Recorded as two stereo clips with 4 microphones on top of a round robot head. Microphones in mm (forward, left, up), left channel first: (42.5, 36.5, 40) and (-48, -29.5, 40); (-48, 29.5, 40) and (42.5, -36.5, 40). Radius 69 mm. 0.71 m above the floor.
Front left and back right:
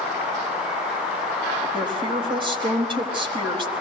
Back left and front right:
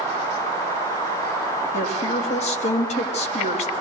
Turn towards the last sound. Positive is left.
turn(degrees=170)